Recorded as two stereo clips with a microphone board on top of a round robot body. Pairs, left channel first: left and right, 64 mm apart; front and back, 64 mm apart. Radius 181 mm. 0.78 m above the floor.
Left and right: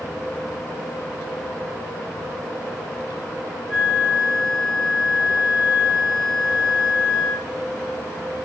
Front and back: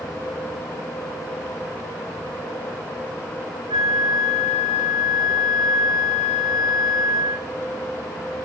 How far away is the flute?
About 2.5 m.